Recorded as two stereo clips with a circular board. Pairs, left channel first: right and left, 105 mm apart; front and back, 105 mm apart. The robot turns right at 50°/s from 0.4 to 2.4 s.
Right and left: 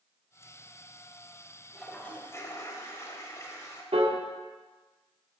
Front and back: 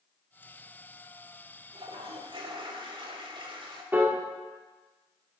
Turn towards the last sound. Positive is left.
turn(degrees=110)